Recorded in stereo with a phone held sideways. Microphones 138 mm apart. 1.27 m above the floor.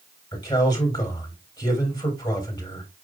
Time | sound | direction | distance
0.3 | a man speaking | 35° left (ahead or behind) | 3.5 m